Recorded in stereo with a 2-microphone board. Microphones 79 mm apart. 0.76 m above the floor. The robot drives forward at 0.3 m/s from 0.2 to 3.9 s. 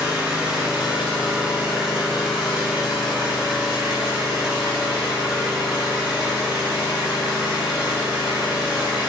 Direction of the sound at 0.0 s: 15° right (ahead or behind).